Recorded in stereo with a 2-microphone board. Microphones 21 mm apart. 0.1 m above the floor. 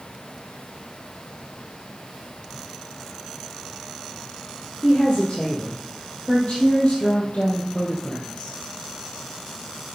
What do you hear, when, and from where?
4.8 s a woman speaking: 50° left (ahead or behind), 3.5 m; by 8.6 s 55° left (ahead or behind), 2.5 m